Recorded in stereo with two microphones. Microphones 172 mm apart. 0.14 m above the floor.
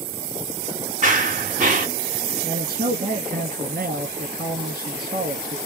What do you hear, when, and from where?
1.0 s running footsteps: 50° right (ahead or behind), 2 m
2.4 s a man speaking: 60° right (ahead or behind), 2.5 m